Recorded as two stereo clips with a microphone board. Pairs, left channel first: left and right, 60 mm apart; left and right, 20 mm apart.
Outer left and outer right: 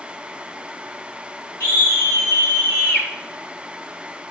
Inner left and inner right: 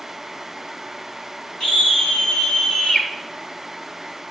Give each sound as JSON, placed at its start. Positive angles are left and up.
{"t": 1.6, "sound": "a scream", "side_deg": 35, "distance_m": 5.0}